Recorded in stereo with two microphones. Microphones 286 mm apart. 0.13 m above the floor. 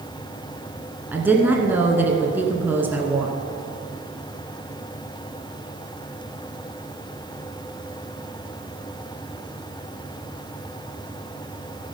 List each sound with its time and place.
1.1 s a woman speaking: 5° right (ahead or behind), 1.3 m